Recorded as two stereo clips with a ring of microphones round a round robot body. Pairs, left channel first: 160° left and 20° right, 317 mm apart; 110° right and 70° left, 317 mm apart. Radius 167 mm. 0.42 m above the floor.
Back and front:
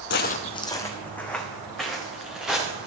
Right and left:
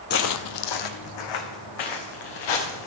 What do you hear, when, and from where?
0.1 s footsteps: 160° right, 0.5 m; by 2.9 s 110° right, 3 m